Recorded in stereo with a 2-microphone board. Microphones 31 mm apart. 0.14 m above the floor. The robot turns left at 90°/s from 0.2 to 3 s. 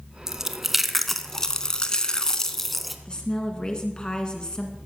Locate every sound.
0.3 s chewing: 20° right (ahead or behind), 0.6 m; by 3.0 s centre (ahead or behind), 0.6 m
3.0 s a woman speaking: 25° left (ahead or behind), 1.6 m